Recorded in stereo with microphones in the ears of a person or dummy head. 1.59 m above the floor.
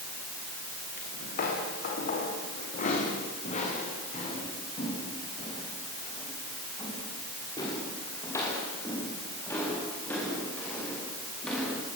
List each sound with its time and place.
1.0 s footsteps: 50° left (ahead or behind), 8.5 m; by 11.8 s centre (ahead or behind), 11.5 m